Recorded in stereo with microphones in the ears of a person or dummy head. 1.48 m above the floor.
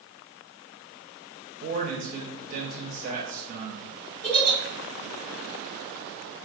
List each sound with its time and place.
1.6 s a man speaking: 35° right (ahead or behind), 0.6 m
4.2 s a giggle: 40° left (ahead or behind), 1.7 m